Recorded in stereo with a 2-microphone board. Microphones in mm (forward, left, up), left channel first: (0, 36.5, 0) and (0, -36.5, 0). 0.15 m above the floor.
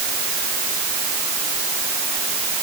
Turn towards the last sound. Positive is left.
No sound to turn to.